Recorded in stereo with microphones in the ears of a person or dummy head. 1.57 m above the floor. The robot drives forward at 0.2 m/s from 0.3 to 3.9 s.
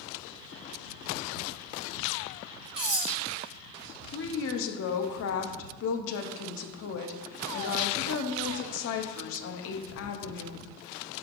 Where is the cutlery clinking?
25° right (ahead or behind), 1.2 m; by 3.1 s 20° right (ahead or behind), 1.3 m.